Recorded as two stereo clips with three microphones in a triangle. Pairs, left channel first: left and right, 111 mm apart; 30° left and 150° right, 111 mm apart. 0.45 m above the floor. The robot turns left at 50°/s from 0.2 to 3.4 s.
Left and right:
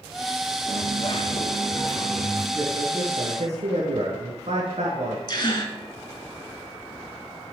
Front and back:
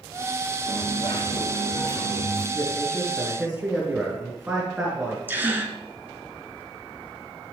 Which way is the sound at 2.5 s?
30° right.